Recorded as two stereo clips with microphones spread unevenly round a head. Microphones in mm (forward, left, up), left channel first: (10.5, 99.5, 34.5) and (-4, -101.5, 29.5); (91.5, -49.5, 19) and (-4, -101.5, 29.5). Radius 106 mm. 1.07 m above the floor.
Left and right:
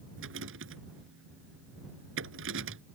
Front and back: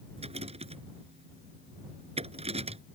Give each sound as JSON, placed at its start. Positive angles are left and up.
{"t": 0.2, "sound": "a rattle", "azimuth_deg": -125}